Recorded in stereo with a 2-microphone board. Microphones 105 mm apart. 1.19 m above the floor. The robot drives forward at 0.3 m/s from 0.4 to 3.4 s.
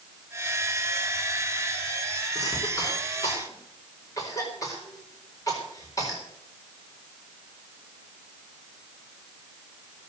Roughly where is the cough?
Left.